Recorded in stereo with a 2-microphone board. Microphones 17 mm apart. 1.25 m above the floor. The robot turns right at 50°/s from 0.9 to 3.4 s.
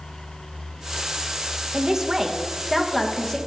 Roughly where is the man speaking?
Ahead right.